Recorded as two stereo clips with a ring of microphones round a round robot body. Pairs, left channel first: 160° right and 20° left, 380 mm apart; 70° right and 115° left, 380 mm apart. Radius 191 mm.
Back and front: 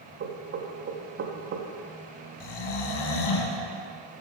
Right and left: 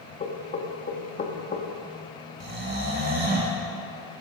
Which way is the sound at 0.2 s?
15° right.